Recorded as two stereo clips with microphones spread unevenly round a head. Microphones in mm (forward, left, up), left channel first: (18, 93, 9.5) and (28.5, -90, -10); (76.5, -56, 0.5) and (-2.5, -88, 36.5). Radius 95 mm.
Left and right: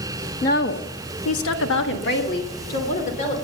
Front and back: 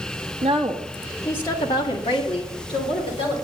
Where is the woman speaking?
145° left, 1.6 m; by 3.4 s 40° left, 3.5 m.